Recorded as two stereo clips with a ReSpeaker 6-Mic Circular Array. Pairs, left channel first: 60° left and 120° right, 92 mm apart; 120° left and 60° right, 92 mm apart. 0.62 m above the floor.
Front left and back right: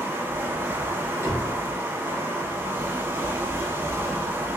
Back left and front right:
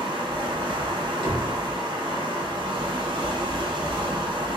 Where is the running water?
60° right, 0.8 m.